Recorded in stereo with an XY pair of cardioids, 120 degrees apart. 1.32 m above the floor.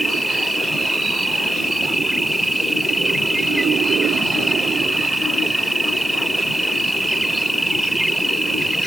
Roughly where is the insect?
Ahead.